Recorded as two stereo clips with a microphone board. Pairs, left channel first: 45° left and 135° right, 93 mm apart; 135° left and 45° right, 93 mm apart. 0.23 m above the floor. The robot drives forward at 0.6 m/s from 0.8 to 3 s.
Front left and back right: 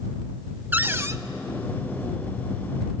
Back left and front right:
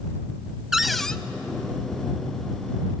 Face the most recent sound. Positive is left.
turn(degrees=-175)